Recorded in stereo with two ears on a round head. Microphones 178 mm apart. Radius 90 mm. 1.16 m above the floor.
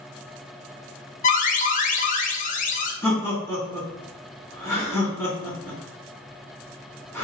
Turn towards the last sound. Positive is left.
turn(degrees=15)  # may be behind; listen again after turning